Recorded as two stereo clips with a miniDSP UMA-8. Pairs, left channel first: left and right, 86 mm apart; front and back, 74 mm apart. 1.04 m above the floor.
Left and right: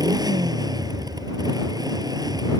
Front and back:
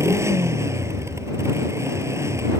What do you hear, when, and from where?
0.0 s a motorcycle: 130° right